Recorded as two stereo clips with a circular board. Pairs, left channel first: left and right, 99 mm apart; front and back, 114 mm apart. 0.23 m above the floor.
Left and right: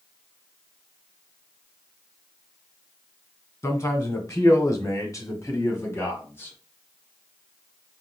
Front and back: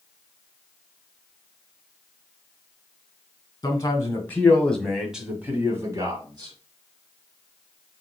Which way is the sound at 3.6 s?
45° left.